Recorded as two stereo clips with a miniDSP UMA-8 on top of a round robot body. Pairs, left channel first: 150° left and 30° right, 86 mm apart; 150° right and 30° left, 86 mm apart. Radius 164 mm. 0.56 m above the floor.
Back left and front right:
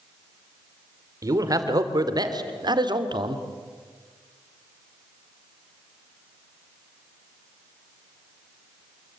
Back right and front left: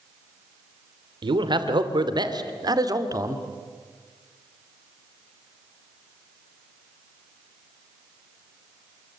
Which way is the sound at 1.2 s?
15° left.